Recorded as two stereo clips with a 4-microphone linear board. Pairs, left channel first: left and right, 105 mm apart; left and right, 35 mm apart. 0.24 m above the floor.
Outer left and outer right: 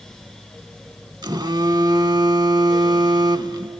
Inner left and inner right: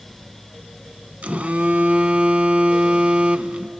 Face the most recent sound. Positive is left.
turn(degrees=-40)  # may be behind; listen again after turning